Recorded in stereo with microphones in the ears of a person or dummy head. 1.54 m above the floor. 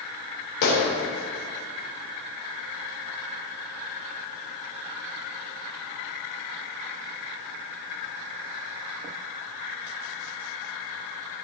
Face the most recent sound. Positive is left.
turn(degrees=60)  # may be behind; listen again after turning